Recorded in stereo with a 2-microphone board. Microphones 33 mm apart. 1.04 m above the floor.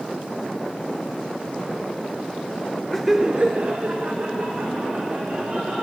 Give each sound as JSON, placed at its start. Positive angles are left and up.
{"t": 2.9, "sound": "laughter", "side_deg": 10, "distance_m": 0.5}